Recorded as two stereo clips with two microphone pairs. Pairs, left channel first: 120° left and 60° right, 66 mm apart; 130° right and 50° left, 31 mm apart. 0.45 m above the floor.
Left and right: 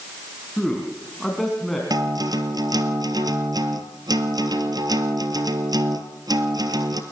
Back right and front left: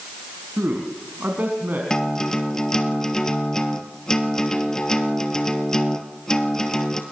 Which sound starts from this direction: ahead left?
A man speaking, at 0.6 s.